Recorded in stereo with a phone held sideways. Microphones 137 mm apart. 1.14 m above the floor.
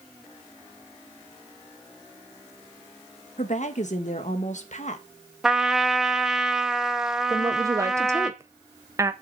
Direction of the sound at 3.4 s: 60° left (ahead or behind).